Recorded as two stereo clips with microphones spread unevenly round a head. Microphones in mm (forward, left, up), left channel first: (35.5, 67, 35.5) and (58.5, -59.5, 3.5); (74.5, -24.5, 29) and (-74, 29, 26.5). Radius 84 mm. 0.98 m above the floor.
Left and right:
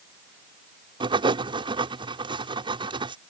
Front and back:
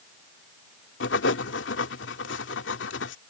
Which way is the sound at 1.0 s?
25° right.